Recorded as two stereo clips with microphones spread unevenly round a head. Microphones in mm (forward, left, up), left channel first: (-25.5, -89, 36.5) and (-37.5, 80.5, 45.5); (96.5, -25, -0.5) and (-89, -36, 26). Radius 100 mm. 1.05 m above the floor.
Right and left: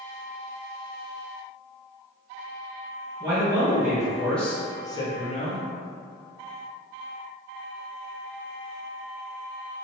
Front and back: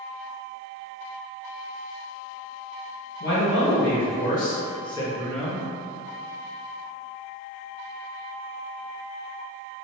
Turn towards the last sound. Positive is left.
turn(degrees=-85)